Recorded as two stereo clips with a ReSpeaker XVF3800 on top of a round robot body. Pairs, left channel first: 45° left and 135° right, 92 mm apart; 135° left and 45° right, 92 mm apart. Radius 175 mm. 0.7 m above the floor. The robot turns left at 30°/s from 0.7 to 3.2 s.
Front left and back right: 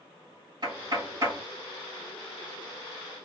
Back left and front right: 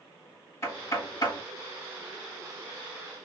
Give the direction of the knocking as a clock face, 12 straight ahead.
6 o'clock.